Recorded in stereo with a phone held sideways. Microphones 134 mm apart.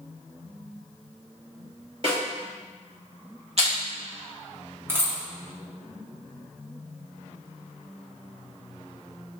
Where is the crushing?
55° right (ahead or behind), 1.8 m.